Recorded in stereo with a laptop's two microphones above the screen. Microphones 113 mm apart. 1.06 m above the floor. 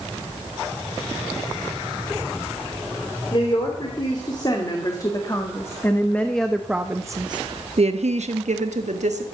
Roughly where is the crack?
No crack in this recording.